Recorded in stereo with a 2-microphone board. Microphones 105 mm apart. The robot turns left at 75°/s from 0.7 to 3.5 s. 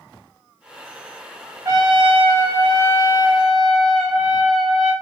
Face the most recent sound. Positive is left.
turn(degrees=180)